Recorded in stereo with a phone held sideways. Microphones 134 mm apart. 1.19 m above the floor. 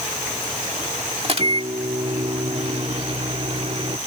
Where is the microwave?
50° right (ahead or behind).